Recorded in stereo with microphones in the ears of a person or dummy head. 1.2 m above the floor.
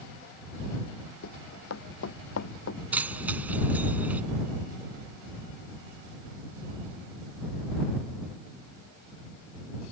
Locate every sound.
1.2 s running footsteps: 80° left; by 2.8 s 70° left (ahead or behind)
2.9 s keys jangling: 10° right (ahead or behind)